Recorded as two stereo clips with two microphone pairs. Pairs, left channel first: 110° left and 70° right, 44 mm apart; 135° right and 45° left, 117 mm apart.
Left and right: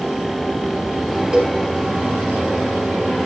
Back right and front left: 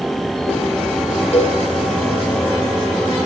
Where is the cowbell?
145° right, 3.5 m.